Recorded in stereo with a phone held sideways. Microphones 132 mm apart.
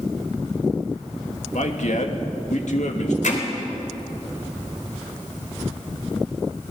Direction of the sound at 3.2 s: 75° left (ahead or behind).